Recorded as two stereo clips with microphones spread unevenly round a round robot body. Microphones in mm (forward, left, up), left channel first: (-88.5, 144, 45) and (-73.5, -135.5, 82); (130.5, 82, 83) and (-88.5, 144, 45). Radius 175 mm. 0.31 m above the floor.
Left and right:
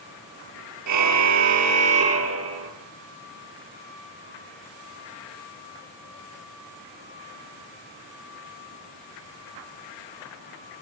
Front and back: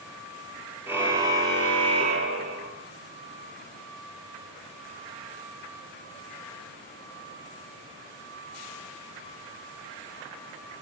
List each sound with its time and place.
0.9 s a car horn: 110° right, 3.5 m; by 2.7 s 130° right, 4 m